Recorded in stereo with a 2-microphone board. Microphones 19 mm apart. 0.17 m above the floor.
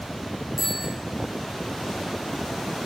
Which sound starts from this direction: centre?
A bicycle bell, at 0.6 s.